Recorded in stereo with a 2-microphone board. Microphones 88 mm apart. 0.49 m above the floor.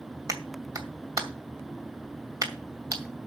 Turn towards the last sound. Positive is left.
turn(degrees=-40)  # may be behind; listen again after turning